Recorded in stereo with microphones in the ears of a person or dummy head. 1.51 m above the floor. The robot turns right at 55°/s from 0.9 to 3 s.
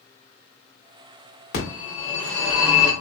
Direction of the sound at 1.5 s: 125° left.